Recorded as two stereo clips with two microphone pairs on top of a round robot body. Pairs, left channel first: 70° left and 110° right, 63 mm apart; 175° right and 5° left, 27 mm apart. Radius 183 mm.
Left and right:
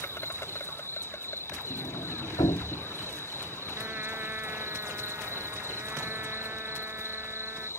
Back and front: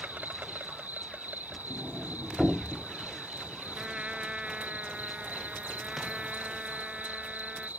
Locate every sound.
0.0 s an insect: 15° left
1.7 s a sliding door: 80° left
3.8 s a trumpet: 50° right